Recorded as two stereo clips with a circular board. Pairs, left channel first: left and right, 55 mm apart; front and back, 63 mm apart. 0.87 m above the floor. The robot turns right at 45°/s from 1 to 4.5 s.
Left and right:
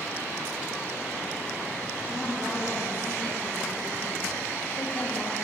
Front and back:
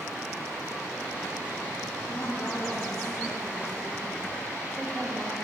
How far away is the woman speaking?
About 1.6 m.